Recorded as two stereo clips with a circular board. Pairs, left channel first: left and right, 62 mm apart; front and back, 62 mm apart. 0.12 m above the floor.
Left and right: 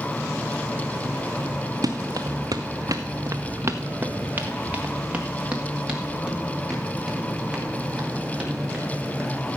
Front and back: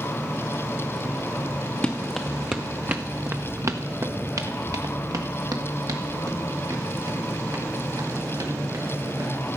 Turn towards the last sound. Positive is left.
turn(degrees=-175)